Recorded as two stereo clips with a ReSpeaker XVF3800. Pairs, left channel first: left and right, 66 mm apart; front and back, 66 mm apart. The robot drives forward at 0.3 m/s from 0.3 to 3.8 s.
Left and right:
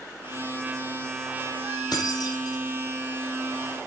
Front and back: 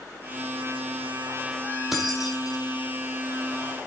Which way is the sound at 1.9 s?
90° left.